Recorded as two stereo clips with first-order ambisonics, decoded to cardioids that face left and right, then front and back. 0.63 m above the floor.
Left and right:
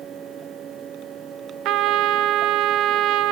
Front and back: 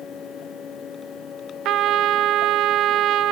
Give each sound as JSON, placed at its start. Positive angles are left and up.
{"t": 1.6, "sound": "a trumpet", "azimuth_deg": -130, "distance_m": 0.6}